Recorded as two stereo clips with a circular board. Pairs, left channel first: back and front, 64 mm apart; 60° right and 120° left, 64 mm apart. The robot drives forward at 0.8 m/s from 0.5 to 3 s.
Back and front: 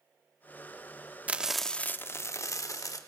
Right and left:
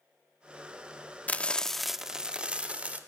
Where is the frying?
35° right, 0.6 m; by 3.0 s 175° right, 1.3 m.